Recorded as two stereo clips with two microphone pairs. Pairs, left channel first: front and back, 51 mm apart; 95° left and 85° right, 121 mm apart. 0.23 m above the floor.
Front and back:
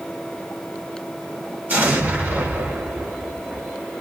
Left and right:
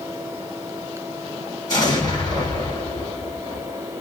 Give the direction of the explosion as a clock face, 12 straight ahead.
7 o'clock.